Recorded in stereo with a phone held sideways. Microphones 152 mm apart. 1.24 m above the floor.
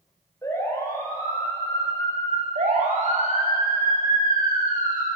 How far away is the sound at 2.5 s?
About 6.5 m.